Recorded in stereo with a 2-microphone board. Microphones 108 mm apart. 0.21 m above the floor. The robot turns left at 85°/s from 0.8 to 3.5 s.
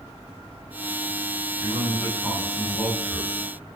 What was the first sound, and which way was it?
A man speaking, 15° right (ahead or behind).